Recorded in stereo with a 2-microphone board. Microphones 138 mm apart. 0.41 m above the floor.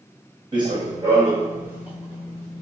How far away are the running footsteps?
About 1.6 m.